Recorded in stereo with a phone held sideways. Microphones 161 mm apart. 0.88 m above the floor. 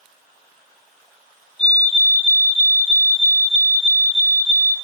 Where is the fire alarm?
35° left (ahead or behind), 2.5 m.